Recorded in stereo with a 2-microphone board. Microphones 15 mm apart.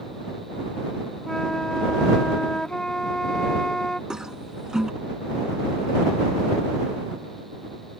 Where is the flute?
50° left (ahead or behind).